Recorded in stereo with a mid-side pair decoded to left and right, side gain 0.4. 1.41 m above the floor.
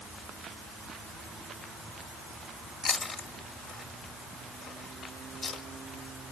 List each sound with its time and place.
2.8 s chewing: 55° left, 2 m